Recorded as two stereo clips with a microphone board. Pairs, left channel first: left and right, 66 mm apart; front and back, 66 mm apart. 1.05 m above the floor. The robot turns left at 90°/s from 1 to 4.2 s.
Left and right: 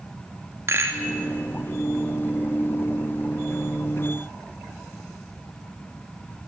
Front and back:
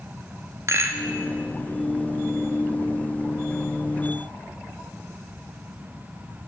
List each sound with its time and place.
0.7 s a rattle: 135° right, 2 m; by 1.1 s 145° right, 2 m